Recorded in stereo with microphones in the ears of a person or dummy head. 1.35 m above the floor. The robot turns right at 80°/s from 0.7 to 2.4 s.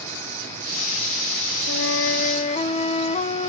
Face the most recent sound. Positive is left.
turn(degrees=150)